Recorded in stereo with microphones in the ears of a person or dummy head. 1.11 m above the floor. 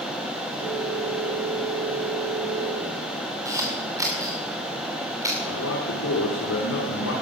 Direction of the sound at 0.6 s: 70° right (ahead or behind).